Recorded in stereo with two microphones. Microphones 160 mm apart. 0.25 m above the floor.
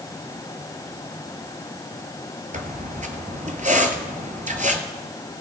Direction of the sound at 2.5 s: 55° right (ahead or behind).